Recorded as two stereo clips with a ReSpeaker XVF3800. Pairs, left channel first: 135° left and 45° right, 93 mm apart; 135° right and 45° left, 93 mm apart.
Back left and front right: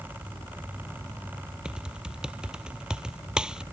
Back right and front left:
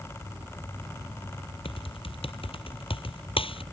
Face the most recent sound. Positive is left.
turn(degrees=-125)